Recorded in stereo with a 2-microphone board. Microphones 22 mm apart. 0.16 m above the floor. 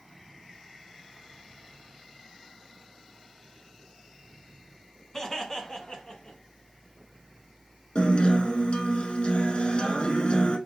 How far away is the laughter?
About 1.1 m.